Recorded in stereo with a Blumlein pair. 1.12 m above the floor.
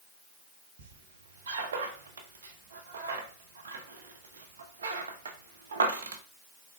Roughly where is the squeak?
Ahead right.